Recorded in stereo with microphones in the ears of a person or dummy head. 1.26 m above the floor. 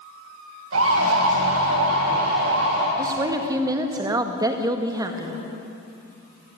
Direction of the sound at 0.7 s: 85° right.